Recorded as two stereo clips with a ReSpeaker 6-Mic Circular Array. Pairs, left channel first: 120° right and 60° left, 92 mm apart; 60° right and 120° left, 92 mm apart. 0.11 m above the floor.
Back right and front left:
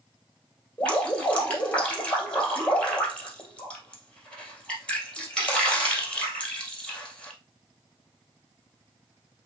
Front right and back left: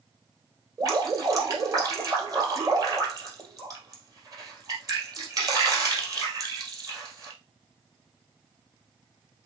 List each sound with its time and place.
0.8 s dripping: 165° left, 2.5 m